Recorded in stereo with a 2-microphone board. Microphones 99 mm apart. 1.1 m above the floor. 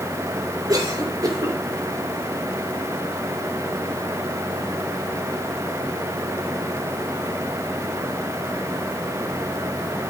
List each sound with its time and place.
0.7 s a cough: 40° right (ahead or behind), 4 m